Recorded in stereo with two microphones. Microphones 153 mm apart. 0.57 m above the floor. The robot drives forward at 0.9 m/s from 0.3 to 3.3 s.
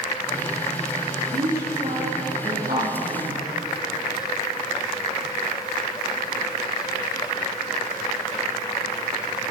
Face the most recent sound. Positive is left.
turn(degrees=-75)  # may be behind; listen again after turning